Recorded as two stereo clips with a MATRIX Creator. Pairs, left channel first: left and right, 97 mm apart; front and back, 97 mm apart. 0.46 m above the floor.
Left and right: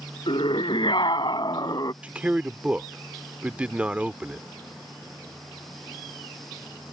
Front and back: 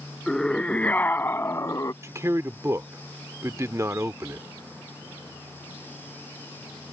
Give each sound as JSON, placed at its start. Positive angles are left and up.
{"t": 0.3, "sound": "a scream", "azimuth_deg": 85}
{"t": 2.0, "sound": "a man speaking", "azimuth_deg": -155}